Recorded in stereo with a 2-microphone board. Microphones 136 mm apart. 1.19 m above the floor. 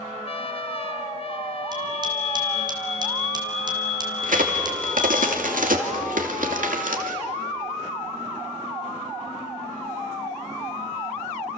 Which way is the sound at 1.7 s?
35° right (ahead or behind).